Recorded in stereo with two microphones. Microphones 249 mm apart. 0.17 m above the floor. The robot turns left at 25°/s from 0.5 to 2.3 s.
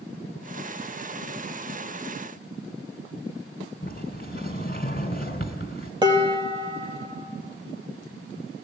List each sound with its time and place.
3.8 s a sliding door: 40° left (ahead or behind), 2 m
6.0 s dishes clattering: 15° right (ahead or behind), 3.5 m